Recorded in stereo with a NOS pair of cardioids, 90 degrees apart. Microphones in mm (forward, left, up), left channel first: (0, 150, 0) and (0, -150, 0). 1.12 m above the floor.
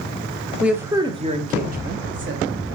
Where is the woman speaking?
Straight ahead, 1.0 m; by 2.8 s 45° right, 1.6 m.